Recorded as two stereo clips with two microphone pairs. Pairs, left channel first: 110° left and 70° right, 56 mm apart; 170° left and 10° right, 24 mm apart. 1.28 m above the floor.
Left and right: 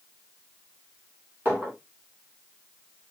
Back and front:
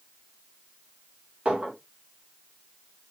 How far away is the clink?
About 3 m.